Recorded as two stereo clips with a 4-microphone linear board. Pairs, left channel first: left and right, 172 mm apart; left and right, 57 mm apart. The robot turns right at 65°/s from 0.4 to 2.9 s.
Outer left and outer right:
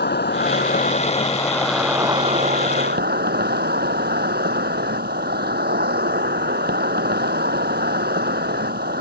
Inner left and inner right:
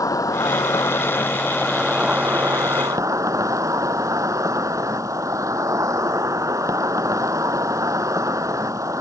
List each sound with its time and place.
0.0 s an insect: 95° left; by 9.0 s 105° right